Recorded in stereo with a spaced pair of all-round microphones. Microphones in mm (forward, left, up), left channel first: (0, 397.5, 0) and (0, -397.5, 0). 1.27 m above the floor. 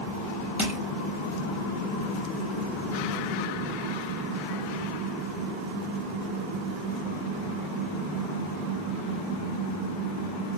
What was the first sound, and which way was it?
Crushing, centre (ahead or behind).